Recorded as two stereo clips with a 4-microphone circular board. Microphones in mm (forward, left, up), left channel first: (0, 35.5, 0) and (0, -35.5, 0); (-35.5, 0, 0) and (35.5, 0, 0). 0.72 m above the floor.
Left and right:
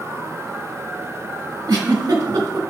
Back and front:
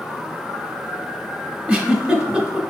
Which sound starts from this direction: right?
A giggle, at 1.7 s.